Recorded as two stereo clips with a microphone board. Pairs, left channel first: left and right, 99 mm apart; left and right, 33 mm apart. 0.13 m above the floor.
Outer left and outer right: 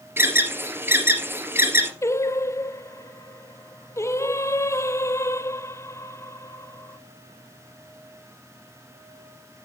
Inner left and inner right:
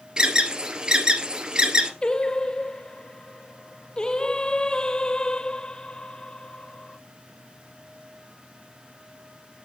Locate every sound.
0.2 s an alarm: 20° right (ahead or behind), 2 m
2.0 s singing: 30° left (ahead or behind), 0.5 m